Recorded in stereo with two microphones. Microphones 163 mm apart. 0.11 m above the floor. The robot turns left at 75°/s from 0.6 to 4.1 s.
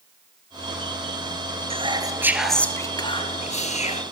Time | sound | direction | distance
1.7 | whispering | 120° right | 2 m